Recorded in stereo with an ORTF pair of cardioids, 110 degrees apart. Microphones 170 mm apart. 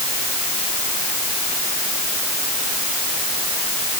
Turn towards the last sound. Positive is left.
No sound to turn to.